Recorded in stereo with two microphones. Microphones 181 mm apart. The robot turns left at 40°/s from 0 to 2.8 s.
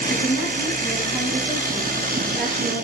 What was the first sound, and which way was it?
A woman speaking, 95° left.